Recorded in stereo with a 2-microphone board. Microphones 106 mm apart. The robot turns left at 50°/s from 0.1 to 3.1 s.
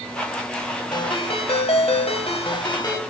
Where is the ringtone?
135° left, 1.7 m; by 3.0 s 35° left, 1.7 m.